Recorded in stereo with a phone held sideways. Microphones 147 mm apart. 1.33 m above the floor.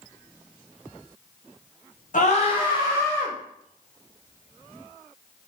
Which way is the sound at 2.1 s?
60° left (ahead or behind).